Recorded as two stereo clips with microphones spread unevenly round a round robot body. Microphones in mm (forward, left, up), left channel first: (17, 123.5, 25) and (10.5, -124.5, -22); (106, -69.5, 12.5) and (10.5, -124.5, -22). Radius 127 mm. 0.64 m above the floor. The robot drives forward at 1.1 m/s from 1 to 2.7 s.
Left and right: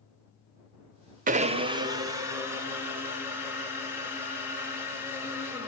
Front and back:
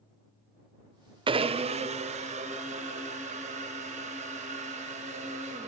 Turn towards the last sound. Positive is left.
turn(degrees=-170)